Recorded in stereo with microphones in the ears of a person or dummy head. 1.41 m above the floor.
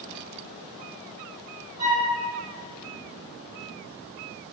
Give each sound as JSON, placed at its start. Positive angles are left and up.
{"t": 1.8, "sound": "a flute", "side_deg": -30, "distance_m": 1.8}